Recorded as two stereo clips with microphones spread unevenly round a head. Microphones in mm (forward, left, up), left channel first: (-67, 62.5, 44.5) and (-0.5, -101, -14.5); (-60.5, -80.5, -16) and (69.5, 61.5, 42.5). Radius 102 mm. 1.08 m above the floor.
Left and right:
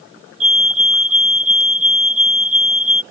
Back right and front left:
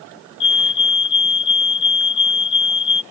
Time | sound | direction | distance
0.4 | a fire alarm | 115° right | ?